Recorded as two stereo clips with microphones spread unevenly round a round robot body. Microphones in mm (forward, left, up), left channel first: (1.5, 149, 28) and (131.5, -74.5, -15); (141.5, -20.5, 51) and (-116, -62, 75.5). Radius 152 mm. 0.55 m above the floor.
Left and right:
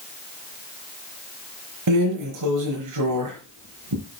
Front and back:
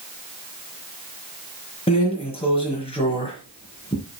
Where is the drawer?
60° right, 4.5 m.